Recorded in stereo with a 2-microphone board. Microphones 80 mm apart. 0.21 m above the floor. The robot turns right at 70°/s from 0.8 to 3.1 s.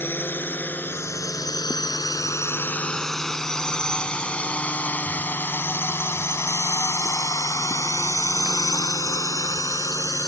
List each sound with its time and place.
0.0 s a drone: 30° left (ahead or behind); by 10.3 s 50° left (ahead or behind)